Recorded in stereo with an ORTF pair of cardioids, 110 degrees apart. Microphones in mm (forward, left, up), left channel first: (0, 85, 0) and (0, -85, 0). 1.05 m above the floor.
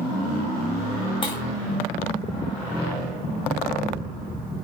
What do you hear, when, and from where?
1.2 s breaking glass: 30° left, 4 m